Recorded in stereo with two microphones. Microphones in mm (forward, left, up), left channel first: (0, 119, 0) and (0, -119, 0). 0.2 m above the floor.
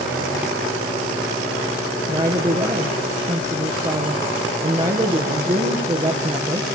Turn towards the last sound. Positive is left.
turn(degrees=-30)  # may be behind; listen again after turning